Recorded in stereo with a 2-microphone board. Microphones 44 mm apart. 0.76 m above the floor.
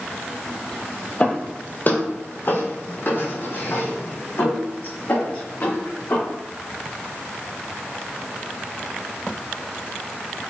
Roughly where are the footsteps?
Left.